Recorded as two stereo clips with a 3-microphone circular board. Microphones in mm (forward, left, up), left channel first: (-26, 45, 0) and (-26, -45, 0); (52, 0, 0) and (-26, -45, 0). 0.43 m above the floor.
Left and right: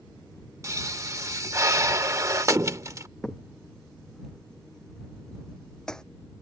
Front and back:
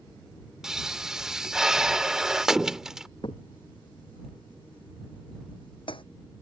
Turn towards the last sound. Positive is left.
turn(degrees=10)